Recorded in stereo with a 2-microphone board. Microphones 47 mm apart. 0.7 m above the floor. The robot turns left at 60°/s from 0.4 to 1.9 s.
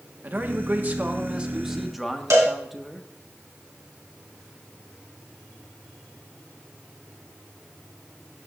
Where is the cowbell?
85° right, 2.5 m.